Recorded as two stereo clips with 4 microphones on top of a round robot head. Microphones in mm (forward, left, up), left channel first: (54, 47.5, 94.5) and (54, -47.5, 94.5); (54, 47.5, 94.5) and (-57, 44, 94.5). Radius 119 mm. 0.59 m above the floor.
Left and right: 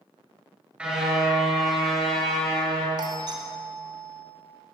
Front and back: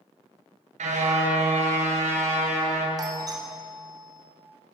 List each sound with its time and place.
0.8 s a car horn: 170° right, 5.5 m; by 2.9 s 170° left, 7 m
3.0 s a doorbell: 125° right, 3.5 m